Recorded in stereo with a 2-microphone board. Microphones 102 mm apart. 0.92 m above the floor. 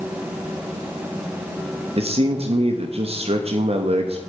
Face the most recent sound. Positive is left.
turn(degrees=-65)  # may be behind; listen again after turning